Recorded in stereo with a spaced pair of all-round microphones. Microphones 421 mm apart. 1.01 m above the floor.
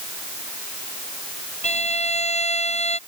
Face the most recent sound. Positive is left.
turn(degrees=-70)  # may be behind; listen again after turning